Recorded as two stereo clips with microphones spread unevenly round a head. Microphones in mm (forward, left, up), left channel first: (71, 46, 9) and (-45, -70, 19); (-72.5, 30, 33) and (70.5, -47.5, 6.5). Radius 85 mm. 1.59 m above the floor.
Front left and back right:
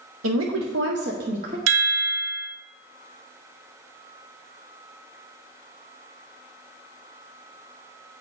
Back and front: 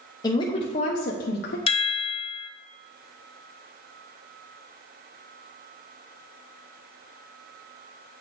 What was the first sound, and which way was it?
A woman speaking, 140° right.